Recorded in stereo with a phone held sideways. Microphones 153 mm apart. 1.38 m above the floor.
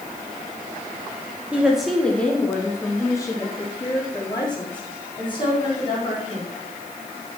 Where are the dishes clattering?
No dishes clattering in this recording.